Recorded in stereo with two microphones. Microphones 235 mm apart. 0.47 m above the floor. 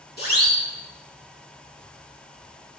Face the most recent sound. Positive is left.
turn(degrees=40)  # may be behind; listen again after turning